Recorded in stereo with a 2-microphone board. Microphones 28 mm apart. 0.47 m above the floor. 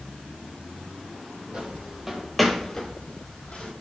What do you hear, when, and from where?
1.5 s footsteps: 40° right (ahead or behind), 0.7 m; by 3.7 s 50° left (ahead or behind), 0.9 m